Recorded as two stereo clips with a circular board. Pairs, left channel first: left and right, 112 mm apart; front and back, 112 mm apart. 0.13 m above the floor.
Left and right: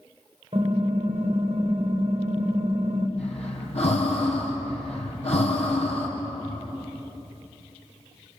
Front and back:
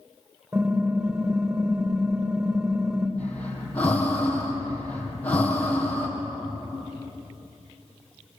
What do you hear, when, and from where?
0.5 s typing on a keyboard: 115° right, 5.5 m
3.2 s breathing: 75° left, 3.5 m